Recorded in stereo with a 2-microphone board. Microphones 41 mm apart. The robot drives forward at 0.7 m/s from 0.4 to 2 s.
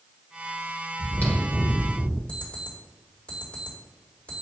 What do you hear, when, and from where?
1.0 s chewing: 50° left (ahead or behind), 1.2 m; by 2.2 s 30° left (ahead or behind), 1.7 m
2.3 s an alarm clock: 35° left (ahead or behind), 2 m